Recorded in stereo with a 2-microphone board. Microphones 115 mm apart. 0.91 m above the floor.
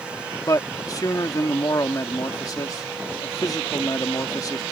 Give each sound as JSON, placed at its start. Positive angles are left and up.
{"t": 0.5, "sound": "a man speaking", "side_deg": 35}